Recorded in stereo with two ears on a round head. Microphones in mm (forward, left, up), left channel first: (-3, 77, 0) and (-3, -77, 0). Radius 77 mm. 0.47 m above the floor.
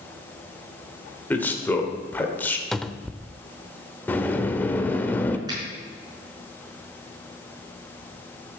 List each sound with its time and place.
1.3 s a man speaking: 10° left (ahead or behind), 1.7 m
2.7 s a cupboard door: centre (ahead or behind), 0.5 m
4.1 s a sliding door: 10° left (ahead or behind), 0.8 m
5.5 s a finger snap: 25° right (ahead or behind), 5 m